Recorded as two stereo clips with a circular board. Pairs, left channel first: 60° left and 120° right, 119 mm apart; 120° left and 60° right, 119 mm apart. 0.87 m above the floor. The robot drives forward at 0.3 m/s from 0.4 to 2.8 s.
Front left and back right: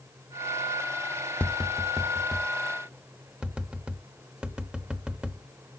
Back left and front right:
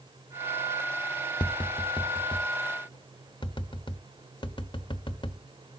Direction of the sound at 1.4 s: 135° left.